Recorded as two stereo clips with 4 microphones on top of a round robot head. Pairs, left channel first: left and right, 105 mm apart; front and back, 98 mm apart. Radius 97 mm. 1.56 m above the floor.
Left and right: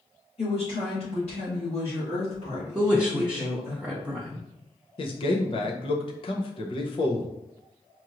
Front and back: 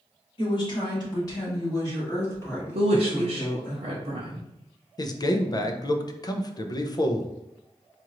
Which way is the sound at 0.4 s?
35° left.